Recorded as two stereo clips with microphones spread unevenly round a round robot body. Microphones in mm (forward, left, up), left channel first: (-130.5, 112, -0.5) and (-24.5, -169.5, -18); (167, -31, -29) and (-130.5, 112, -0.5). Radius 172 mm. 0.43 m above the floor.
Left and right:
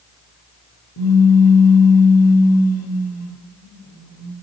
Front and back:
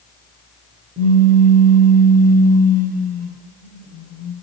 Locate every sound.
1.0 s a pop: 90° left, 0.7 m